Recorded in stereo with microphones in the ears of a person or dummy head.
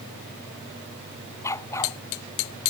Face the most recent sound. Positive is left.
turn(degrees=15)  # may be behind; listen again after turning